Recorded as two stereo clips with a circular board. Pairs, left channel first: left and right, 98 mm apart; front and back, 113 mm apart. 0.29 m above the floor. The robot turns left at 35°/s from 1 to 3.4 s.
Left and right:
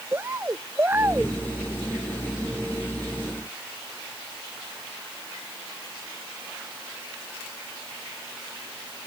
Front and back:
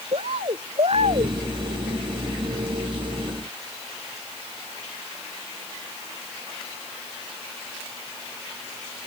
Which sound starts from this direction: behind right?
A bird, at 0.1 s.